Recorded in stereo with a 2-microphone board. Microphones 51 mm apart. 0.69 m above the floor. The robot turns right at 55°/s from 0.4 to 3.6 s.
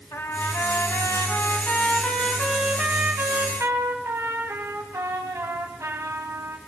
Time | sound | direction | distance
0.1 | a trumpet | 70° left | 3 m